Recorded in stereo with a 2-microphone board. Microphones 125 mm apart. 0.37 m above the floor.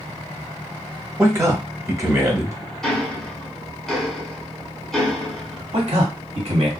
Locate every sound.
1.2 s a man speaking: 25° right (ahead or behind), 0.9 m
2.8 s ticking: centre (ahead or behind), 1.0 m
5.7 s a man speaking: 60° right (ahead or behind), 1.8 m